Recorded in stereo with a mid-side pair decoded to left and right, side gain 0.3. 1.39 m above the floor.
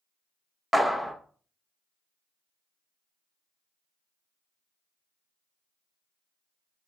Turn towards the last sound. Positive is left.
turn(degrees=-5)